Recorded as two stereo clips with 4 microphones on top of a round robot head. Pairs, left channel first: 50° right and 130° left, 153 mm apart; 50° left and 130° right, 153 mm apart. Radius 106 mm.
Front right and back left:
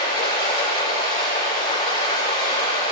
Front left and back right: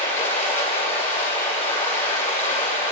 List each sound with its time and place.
0.0 s running water: 10° left, 8.5 m